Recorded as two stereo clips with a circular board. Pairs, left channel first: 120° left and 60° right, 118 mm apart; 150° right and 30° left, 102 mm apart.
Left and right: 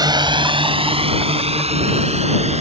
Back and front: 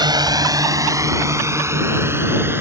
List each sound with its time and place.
0.0 s a drone: 10° right; by 2.6 s 35° right